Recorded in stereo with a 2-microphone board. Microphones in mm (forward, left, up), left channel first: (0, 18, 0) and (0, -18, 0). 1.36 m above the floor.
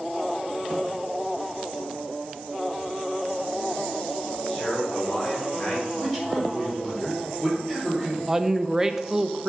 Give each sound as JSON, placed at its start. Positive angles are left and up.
{"t": 4.5, "sound": "a man speaking", "side_deg": 30, "distance_m": 4.5}
{"t": 6.0, "sound": "a man speaking", "side_deg": 10, "distance_m": 4.5}
{"t": 8.3, "sound": "a woman speaking", "side_deg": -15, "distance_m": 0.6}